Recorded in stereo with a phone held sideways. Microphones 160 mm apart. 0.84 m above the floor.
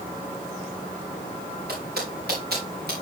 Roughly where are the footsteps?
Right.